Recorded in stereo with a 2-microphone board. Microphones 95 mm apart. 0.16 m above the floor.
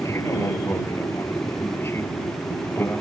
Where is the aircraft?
30° left (ahead or behind); by 3.0 s 25° left (ahead or behind).